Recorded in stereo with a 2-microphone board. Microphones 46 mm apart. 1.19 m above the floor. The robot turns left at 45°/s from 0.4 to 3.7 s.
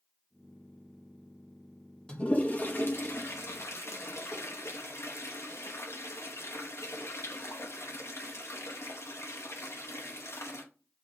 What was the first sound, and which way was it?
A toilet flushing, 20° left (ahead or behind).